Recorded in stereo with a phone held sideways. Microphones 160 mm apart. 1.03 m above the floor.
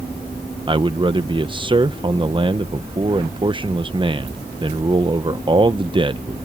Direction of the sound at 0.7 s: 30° right (ahead or behind).